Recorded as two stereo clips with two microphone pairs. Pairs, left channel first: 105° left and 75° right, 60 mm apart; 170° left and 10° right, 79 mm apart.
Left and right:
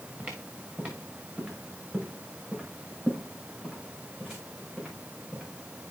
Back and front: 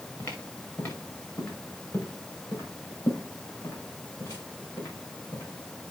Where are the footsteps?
145° right, 3 m; by 5.4 s 155° right, 7.5 m.